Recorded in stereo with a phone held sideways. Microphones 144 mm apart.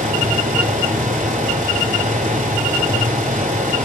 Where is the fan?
75° right (ahead or behind), 4.5 m.